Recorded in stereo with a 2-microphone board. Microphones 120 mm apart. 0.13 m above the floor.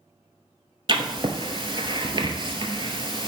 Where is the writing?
45° right (ahead or behind), 0.8 m.